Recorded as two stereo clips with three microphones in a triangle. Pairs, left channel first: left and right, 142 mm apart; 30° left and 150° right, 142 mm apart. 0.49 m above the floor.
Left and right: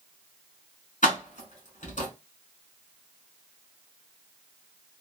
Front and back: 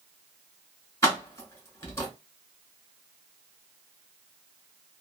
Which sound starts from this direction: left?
Keys jangling, at 1.0 s.